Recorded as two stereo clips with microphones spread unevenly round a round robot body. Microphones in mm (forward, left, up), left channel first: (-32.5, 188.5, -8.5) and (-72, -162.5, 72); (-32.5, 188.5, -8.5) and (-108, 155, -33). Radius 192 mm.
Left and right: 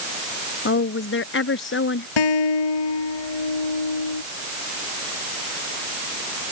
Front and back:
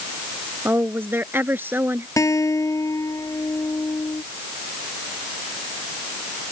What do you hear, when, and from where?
0.7 s a woman speaking: 140° left
2.2 s a guitar: 70° left